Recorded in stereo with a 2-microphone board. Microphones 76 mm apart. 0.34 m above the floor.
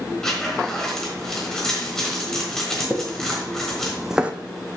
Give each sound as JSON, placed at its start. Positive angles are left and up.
{"t": 0.2, "sound": "a zipper", "side_deg": 10, "distance_m": 3.5}
{"t": 2.9, "sound": "footsteps", "side_deg": 30, "distance_m": 1.8}